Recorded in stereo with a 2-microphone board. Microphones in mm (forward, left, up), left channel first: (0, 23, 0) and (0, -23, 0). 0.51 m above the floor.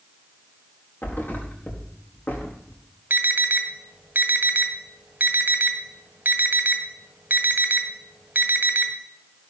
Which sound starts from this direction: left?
A thud, at 1.0 s.